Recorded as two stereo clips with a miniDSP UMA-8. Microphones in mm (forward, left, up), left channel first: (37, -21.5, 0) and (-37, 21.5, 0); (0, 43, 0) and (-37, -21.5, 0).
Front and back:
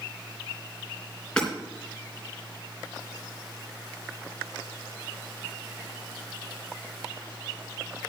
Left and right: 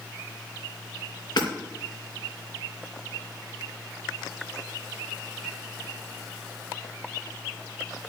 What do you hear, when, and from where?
1.4 s hammering: 50° left, 3.5 m